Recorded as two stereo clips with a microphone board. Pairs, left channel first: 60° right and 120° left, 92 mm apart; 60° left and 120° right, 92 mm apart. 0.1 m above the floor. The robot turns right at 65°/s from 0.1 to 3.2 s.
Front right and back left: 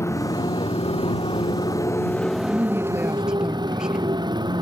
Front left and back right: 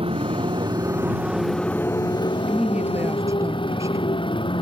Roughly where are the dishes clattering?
I don't hear dishes clattering.